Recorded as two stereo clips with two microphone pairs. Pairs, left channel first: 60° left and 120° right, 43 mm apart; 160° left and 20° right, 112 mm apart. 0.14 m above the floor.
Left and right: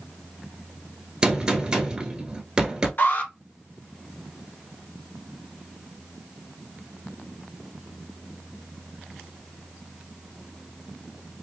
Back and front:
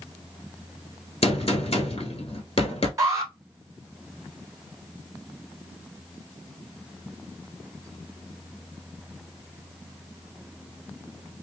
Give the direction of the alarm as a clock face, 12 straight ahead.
11 o'clock.